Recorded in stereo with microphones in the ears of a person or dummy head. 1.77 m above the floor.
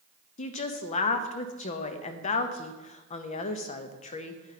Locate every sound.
0.4 s a woman speaking: 40° left (ahead or behind), 0.7 m